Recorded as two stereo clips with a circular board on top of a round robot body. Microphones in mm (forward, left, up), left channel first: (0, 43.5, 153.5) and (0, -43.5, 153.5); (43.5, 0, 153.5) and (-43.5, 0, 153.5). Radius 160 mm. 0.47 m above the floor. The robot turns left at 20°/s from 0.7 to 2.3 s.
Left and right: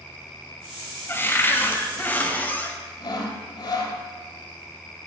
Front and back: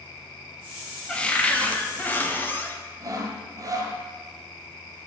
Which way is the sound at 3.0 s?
130° left.